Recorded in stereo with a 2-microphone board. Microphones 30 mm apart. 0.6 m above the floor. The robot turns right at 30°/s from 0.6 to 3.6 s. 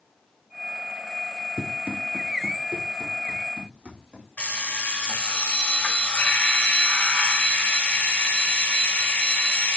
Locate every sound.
1.6 s running footsteps: 50° right (ahead or behind), 0.8 m
4.4 s an alarm clock: 50° left (ahead or behind), 1.2 m